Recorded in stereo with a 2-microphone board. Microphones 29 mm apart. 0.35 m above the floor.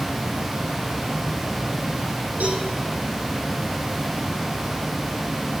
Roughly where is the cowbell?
Right.